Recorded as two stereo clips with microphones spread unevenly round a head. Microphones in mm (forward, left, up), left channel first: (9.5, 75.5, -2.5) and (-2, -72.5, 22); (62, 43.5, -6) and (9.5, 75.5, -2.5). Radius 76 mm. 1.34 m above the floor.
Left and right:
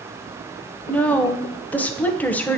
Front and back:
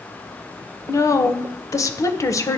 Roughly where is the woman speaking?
Ahead.